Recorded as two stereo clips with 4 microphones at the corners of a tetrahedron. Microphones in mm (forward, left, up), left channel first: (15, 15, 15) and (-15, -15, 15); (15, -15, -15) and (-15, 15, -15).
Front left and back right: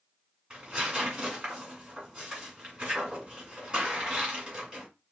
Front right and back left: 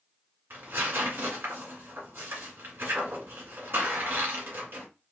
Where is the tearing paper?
155° left, 1.9 m.